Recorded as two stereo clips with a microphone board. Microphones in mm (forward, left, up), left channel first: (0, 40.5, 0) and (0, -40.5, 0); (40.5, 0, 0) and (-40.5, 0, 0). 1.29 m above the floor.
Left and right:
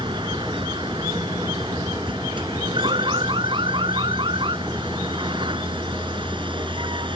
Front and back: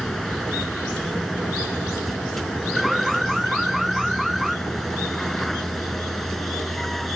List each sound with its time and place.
0.0 s a vehicle: 85° right
2.8 s an alarm: 90° right